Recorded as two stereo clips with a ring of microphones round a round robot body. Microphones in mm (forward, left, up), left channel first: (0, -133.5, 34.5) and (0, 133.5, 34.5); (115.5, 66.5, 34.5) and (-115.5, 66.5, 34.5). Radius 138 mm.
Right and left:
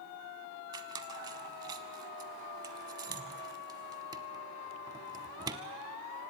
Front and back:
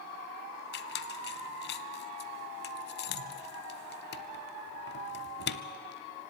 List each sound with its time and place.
0.7 s a squeak: 20° left, 0.6 m